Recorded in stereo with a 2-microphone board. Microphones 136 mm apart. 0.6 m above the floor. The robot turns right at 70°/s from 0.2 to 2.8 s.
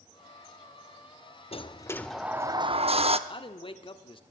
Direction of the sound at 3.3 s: 40° left (ahead or behind).